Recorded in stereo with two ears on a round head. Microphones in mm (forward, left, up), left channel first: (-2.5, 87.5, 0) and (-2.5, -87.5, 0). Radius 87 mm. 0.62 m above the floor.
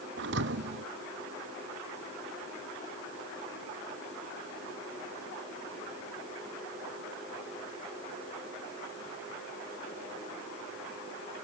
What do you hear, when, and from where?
0.2 s a thud: 65° right (ahead or behind)